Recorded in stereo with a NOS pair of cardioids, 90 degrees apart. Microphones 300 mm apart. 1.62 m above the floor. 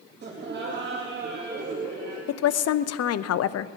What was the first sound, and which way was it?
Laughter, 35° right.